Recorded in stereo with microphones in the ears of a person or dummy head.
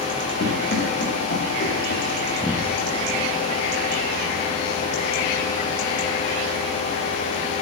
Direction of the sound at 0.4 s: 50° left (ahead or behind).